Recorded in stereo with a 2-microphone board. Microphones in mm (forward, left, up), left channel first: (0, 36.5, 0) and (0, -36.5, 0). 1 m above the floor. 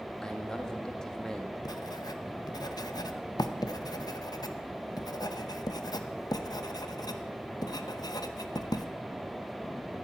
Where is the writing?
65° left (ahead or behind), 0.8 m.